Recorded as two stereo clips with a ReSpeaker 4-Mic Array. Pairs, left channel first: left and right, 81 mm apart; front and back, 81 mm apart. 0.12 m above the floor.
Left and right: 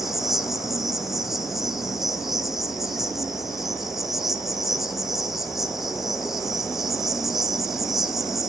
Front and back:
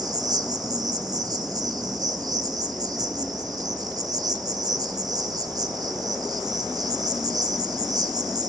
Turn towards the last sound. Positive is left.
turn(degrees=-175)